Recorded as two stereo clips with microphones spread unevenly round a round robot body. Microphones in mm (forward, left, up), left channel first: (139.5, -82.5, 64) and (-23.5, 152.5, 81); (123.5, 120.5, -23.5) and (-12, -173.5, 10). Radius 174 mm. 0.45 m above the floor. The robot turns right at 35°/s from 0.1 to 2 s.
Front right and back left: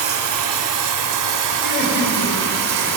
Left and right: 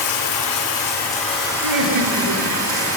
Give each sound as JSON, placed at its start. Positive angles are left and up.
{"t": 0.0, "sound": "running water", "azimuth_deg": 100, "distance_m": 1.5}
{"t": 1.6, "sound": "laughter", "azimuth_deg": -120, "distance_m": 2.5}